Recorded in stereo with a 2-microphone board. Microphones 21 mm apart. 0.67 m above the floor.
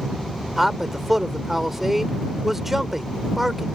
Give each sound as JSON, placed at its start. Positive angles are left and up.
{"t": 0.6, "sound": "a man speaking", "side_deg": -15}